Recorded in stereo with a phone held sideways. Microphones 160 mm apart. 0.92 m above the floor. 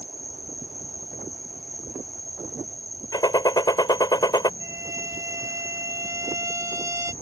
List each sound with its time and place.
0.0 s an insect: 65° left (ahead or behind)
3.1 s a gunshot: 25° left (ahead or behind)
4.6 s a violin: 20° right (ahead or behind)